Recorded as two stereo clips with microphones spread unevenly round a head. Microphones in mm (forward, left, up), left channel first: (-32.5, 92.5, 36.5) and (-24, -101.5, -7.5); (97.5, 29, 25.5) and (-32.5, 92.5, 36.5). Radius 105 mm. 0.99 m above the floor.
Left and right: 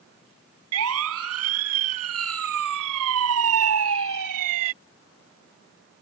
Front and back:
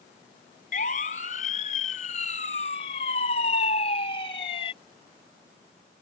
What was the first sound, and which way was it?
A siren, 80° right.